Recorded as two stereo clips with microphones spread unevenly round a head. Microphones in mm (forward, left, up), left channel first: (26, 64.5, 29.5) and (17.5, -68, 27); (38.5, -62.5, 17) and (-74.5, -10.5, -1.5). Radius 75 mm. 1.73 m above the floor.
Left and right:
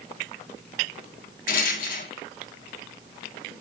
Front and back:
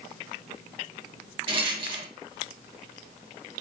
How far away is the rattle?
About 1.2 m.